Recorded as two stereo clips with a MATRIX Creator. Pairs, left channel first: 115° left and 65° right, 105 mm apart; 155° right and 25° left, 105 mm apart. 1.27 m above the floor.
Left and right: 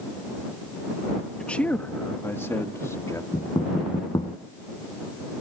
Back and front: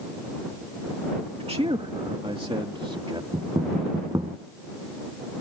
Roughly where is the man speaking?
Ahead left.